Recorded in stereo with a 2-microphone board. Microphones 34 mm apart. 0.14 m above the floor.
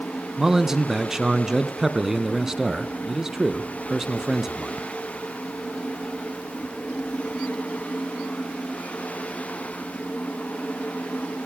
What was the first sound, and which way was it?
A man speaking, 10° right (ahead or behind).